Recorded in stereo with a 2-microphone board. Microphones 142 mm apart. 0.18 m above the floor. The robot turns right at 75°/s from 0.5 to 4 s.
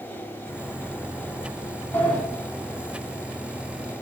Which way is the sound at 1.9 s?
15° left (ahead or behind).